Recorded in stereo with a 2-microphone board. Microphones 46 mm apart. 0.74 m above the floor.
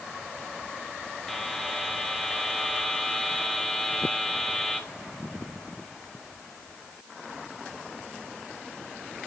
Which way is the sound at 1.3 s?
5° left (ahead or behind).